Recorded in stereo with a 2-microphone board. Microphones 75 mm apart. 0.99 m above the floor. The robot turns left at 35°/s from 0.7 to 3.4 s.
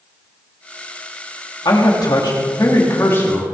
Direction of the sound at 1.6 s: 85° left.